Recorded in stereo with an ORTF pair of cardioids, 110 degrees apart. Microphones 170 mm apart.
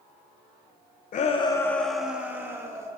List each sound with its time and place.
1.1 s a shout: 50° left, 0.8 m; by 2.9 s 20° right, 2 m